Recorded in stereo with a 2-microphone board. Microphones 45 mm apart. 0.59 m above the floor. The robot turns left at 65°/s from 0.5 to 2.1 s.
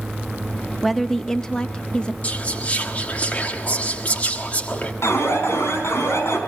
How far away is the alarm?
About 4 m.